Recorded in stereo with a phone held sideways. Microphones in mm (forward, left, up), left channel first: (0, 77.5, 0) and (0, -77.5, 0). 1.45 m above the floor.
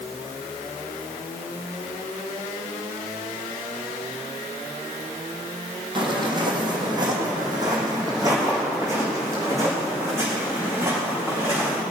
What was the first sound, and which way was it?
Footsteps, 30° right (ahead or behind).